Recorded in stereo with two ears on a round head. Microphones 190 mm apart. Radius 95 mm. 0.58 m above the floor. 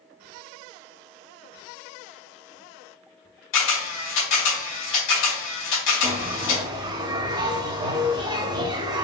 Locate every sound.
3.5 s a camera shutter: 65° left (ahead or behind), 2 m
6.0 s a bell: 20° right (ahead or behind), 0.7 m